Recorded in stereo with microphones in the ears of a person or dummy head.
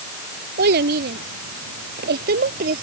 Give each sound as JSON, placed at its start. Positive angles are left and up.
{"t": 0.6, "sound": "a child speaking", "side_deg": -60}